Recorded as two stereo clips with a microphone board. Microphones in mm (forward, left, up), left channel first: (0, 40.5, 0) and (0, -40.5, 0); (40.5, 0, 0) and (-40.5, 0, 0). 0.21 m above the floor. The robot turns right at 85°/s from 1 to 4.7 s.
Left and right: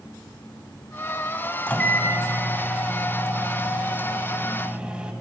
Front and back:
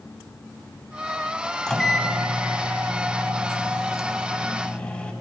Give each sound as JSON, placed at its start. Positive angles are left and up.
{"t": 1.7, "sound": "a microwave", "azimuth_deg": 60, "distance_m": 0.8}